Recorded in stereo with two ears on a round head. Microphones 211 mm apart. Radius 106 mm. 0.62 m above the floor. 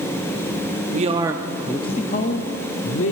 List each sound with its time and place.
0.9 s a man speaking: 35° right (ahead or behind), 0.7 m; by 3.1 s 60° left (ahead or behind), 1.2 m